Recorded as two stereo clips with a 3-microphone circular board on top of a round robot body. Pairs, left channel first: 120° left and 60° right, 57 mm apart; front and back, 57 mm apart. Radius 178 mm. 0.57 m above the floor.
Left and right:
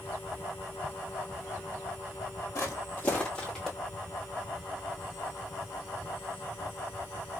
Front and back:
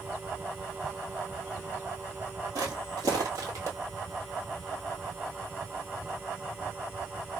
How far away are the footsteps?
About 1.0 m.